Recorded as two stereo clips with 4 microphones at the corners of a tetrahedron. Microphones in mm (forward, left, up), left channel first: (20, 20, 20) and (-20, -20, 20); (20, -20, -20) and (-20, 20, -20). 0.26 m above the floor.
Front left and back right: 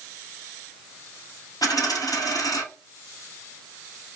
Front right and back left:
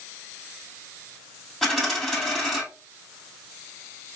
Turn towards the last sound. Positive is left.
turn(degrees=40)